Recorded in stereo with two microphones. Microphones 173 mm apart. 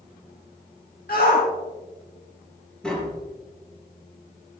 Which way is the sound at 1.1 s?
60° left (ahead or behind).